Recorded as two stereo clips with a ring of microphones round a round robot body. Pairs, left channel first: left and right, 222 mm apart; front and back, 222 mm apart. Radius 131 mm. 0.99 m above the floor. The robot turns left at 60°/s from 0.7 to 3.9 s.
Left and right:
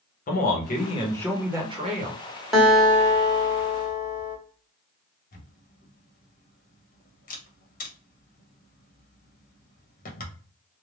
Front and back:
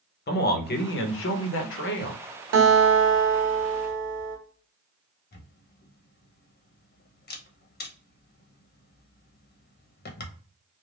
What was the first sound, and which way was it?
A man speaking, 40° left.